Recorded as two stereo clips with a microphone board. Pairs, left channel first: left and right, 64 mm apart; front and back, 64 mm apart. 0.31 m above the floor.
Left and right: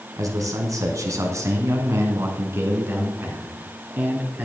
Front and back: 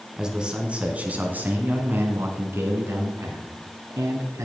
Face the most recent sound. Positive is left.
turn(degrees=-150)